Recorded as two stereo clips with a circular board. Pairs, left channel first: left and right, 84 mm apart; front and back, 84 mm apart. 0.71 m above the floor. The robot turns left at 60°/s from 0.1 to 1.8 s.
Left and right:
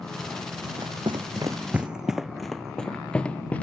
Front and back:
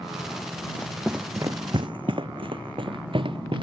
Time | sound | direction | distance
0.6 | running footsteps | 50° right | ?